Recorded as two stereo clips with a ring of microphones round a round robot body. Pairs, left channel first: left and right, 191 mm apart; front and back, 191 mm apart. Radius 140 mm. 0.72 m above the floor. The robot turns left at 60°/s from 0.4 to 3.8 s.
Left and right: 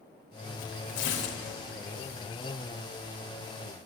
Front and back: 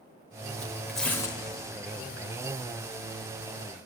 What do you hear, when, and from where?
0.6 s tearing paper: 110° left, 1.3 m; by 1.4 s 65° left, 1.3 m